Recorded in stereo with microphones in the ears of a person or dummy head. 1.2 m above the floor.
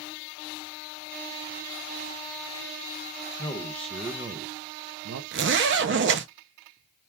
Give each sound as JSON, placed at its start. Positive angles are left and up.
{"t": 3.4, "sound": "a man speaking", "side_deg": 25, "distance_m": 0.7}
{"t": 5.3, "sound": "a zipper", "side_deg": -60, "distance_m": 0.7}